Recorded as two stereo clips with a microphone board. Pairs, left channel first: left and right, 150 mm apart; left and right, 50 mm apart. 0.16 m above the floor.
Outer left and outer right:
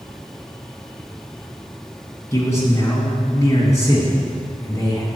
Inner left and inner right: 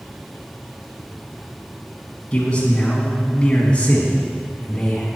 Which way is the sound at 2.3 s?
20° left (ahead or behind).